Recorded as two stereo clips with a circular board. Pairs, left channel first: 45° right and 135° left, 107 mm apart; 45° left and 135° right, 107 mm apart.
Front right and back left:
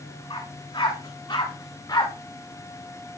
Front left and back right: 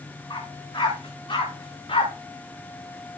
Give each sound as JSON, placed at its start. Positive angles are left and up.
{"t": 0.3, "sound": "a dog barking", "azimuth_deg": -5, "distance_m": 7.5}